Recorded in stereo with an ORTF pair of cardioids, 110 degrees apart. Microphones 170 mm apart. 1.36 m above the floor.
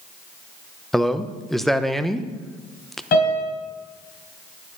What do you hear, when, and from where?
0.9 s a man speaking: straight ahead, 0.9 m
3.1 s a piano: 60° left, 4 m